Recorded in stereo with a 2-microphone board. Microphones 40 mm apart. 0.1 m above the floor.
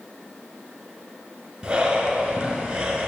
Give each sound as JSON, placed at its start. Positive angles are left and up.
{"t": 1.6, "sound": "breathing", "side_deg": -20, "distance_m": 1.0}